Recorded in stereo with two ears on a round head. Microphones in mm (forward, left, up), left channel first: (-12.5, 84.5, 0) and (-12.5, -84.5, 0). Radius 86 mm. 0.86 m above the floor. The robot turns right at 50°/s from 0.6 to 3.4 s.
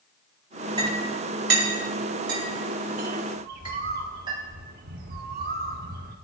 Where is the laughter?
No laughter in this recording.